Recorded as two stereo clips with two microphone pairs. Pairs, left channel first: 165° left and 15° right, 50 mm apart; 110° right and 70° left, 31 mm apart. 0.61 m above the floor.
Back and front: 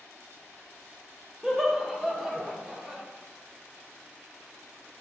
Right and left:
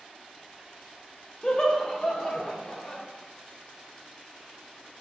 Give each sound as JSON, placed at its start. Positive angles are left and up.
{"t": 1.4, "sound": "laughter", "azimuth_deg": -80, "distance_m": 0.6}